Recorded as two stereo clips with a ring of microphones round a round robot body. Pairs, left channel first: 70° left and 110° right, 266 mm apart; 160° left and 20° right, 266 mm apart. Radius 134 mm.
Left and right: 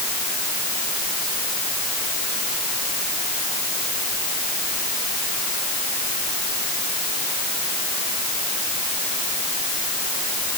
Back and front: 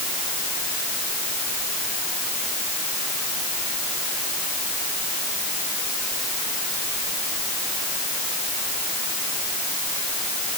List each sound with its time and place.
Only background noise.